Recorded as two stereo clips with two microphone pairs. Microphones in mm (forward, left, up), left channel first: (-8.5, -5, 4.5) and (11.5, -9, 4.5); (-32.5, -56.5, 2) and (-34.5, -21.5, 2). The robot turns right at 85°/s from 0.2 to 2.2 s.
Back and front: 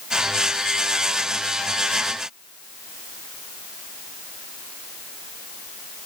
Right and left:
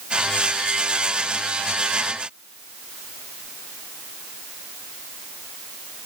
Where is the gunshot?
No gunshot in this recording.